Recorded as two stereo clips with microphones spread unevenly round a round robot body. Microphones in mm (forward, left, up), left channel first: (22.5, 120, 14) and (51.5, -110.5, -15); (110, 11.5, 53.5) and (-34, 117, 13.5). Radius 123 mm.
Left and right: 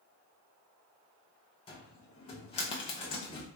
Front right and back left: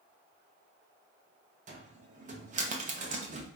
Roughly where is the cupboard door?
Behind.